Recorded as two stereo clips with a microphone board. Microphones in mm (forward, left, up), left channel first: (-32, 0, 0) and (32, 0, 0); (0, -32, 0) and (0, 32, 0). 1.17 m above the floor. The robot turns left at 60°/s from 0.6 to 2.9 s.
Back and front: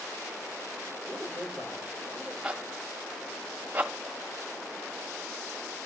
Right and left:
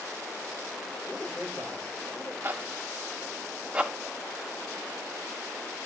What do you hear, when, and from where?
1.1 s a man speaking: 30° right, 5.5 m; by 2.3 s 105° right, 5.5 m
2.4 s a zipper: 65° left, 1.1 m; by 5.9 s 35° left, 1.1 m